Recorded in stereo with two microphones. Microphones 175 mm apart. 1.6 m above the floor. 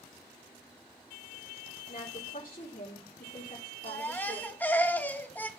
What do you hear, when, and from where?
1.9 s a woman speaking: 40° left (ahead or behind), 4 m
3.9 s a baby crying: 10° left (ahead or behind), 1.3 m